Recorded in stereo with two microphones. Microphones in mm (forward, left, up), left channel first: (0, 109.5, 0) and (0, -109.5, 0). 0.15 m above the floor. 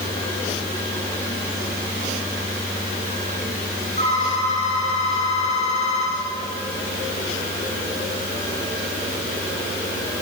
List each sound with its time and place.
4.0 s a phone ringing: 30° left (ahead or behind), 9.5 m